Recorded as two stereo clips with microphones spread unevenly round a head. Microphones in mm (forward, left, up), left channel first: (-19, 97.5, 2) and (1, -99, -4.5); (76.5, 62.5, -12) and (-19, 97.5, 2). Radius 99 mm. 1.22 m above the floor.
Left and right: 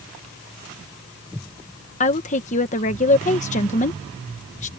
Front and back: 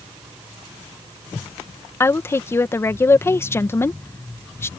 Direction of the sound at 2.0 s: 40° left.